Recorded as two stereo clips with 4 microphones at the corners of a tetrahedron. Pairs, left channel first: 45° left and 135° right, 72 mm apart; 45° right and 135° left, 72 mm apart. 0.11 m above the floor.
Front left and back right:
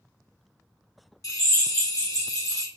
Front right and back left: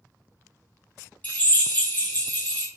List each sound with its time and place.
1.2 s a drill: 15° left, 1.3 m